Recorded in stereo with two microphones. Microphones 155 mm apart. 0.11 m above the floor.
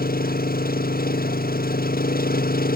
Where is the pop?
No pop in this recording.